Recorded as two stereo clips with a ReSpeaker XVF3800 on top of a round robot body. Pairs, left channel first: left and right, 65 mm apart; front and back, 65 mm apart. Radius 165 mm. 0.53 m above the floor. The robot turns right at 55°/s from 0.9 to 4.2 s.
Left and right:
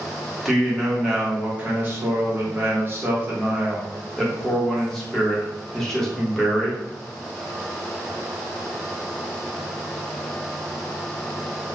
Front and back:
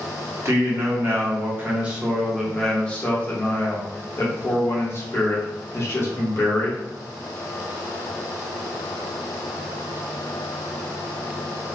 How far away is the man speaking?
About 1.1 m.